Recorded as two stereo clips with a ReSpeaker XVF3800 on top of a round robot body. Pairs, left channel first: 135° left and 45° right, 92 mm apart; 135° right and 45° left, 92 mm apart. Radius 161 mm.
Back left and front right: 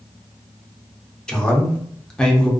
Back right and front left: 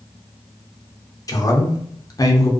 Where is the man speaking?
150° right, 0.8 m.